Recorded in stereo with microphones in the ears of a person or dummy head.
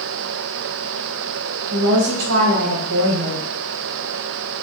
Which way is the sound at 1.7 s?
80° right.